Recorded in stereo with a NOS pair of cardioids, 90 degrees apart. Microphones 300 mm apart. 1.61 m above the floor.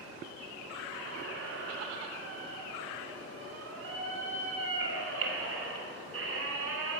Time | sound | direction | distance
0.9 | a squeak | 50° right | 3 m